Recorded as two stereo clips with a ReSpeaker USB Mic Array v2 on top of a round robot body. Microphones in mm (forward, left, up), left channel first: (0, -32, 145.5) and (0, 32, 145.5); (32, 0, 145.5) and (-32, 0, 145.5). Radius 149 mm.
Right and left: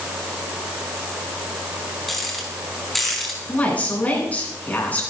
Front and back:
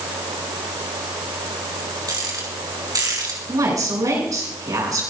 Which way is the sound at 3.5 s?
155° right.